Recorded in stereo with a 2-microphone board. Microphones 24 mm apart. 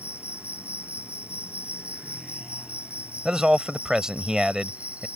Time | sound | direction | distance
0.0 | an insect | 70° right (ahead or behind) | ?
3.2 | a man speaking | 30° right (ahead or behind) | ?